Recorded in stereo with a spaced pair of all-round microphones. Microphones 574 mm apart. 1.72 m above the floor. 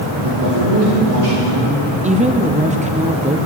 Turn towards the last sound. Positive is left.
turn(degrees=-10)  # may be behind; listen again after turning